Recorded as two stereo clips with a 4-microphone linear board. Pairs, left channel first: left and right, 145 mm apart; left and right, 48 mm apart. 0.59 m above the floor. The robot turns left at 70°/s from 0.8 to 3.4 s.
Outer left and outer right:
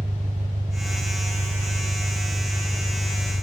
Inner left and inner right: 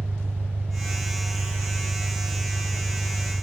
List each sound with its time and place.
0.0 s an engine running: 50° right, 0.9 m; by 3.4 s 125° left, 0.9 m